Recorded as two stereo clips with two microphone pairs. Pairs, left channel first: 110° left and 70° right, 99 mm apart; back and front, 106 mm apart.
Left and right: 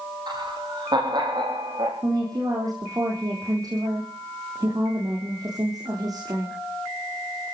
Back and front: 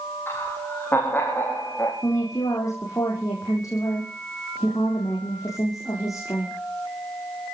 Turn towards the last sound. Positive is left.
turn(degrees=-120)